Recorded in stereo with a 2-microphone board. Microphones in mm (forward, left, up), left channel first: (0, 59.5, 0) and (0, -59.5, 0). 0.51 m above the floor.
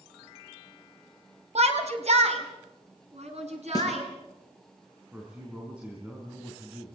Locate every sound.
1.6 s a shout: 65° right (ahead or behind), 3 m; by 4.0 s 70° right (ahead or behind), 6.5 m
3.8 s a snare drum: 35° left (ahead or behind), 5.5 m
5.1 s a man speaking: 10° right (ahead or behind), 4.5 m